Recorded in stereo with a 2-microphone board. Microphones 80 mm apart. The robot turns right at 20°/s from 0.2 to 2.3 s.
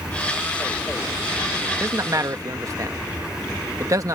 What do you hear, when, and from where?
1.8 s a man speaking: 35° right (ahead or behind); by 4.2 s 45° right (ahead or behind)